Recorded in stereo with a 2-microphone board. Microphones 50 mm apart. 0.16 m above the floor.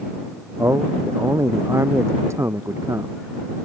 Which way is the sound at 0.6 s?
65° right (ahead or behind).